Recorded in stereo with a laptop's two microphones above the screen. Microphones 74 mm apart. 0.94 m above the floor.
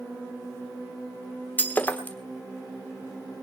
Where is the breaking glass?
25° left (ahead or behind), 1.2 m.